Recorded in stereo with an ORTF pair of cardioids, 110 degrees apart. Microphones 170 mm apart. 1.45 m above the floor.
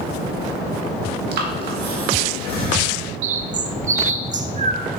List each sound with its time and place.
1.3 s breathing: 70° right, 1.6 m
3.2 s a bird: 45° right, 0.6 m